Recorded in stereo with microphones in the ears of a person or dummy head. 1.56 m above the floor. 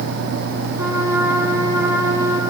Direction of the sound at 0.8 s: 25° right (ahead or behind).